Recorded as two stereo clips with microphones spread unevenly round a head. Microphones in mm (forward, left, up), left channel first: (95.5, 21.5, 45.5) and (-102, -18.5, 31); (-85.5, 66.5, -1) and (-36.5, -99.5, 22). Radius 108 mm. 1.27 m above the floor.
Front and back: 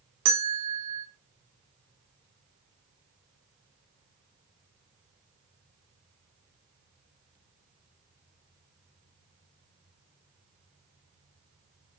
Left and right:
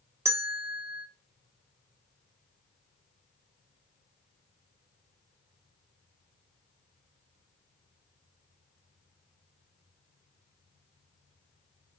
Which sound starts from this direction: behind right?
A bell, at 0.2 s.